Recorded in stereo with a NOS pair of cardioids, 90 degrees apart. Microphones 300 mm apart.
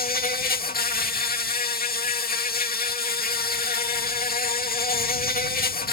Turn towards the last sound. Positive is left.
turn(degrees=30)